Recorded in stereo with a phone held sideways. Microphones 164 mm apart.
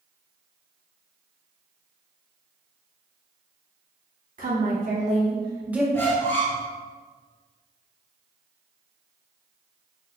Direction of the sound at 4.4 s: 65° right (ahead or behind).